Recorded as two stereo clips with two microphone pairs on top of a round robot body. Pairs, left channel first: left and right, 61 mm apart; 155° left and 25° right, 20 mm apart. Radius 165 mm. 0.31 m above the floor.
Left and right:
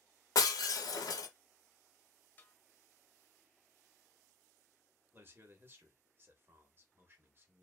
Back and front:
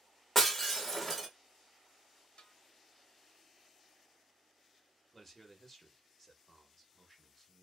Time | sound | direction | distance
0.3 | breaking glass | 70° left | 0.7 m
2.4 | a snare drum | 145° left | 0.9 m
5.1 | a man speaking | 110° right | 1.0 m